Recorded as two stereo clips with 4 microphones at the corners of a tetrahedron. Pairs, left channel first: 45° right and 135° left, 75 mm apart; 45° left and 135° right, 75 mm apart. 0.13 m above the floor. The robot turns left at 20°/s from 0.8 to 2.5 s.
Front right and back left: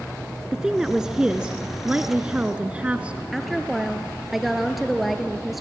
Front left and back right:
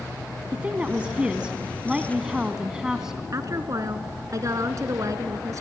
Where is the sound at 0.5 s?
165° right, 1.0 m; by 3.2 s 165° left, 1.0 m.